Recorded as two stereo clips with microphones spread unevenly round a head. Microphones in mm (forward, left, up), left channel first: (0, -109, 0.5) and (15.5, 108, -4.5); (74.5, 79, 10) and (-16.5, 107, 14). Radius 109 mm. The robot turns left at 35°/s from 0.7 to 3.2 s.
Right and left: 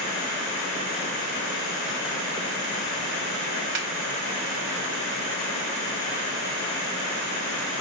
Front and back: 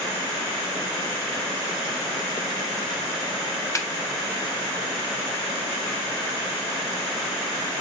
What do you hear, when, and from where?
3.8 s a snare drum: 45° left, 0.7 m